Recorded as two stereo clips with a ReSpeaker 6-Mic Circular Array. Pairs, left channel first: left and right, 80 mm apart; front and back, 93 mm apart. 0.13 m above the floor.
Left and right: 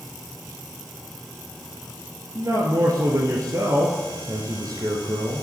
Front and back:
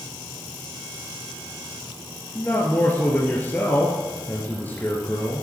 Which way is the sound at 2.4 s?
65° right.